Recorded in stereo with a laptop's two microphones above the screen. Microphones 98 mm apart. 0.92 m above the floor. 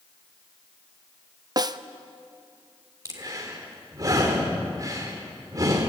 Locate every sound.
1.6 s a snare drum: 40° right (ahead or behind), 0.6 m
3.0 s breathing: 35° right (ahead or behind), 3.5 m